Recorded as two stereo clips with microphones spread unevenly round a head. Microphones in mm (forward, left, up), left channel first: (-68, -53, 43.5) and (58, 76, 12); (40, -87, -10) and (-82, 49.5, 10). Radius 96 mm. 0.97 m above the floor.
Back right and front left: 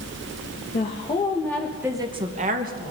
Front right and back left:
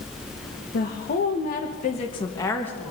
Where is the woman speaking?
80° right, 1.6 m; by 2.9 s 35° left, 1.6 m.